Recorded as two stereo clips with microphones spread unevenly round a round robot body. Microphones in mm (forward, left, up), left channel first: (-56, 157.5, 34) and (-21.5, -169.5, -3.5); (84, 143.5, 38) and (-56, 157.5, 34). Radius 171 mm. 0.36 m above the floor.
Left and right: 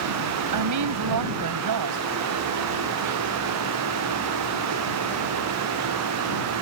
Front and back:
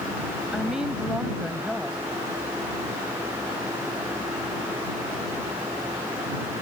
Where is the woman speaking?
100° right.